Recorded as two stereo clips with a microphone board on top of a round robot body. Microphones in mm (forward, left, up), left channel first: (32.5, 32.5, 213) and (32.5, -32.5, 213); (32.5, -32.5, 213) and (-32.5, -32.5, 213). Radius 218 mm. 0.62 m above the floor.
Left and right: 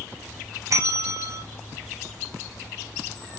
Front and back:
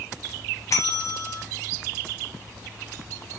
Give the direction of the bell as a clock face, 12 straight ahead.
1 o'clock.